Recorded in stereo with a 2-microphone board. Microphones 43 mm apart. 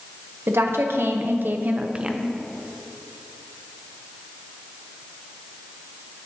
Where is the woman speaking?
80° right, 1.0 m; by 2.4 s 10° right (ahead or behind), 0.6 m.